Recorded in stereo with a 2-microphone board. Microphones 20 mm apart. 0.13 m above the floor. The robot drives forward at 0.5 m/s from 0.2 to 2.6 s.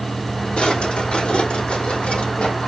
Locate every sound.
0.6 s a drawer: 70° left (ahead or behind), 3 m; by 2.7 s 80° left, 2.5 m